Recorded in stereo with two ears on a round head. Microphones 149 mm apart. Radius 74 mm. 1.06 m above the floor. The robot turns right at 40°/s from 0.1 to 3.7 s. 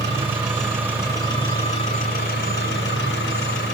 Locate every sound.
0.0 s an engine running: 20° right, 8.5 m; by 3.7 s 120° left, 8.5 m